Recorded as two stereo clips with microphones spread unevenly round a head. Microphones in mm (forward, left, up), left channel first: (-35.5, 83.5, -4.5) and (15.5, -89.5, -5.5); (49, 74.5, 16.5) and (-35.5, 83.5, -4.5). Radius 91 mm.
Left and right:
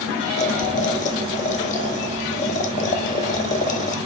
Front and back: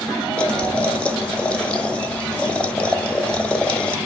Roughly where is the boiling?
Ahead left.